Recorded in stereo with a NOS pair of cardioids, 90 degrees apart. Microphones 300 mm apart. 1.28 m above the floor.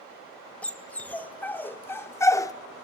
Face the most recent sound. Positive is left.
turn(degrees=15)